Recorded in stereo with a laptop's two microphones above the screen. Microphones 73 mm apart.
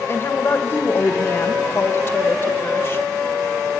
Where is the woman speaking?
30° left (ahead or behind), 1.4 m.